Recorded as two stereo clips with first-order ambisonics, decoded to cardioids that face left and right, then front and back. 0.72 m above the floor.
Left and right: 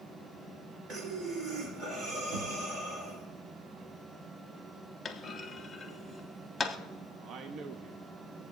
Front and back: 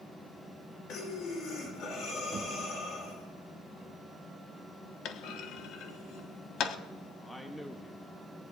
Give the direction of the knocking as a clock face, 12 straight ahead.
4 o'clock.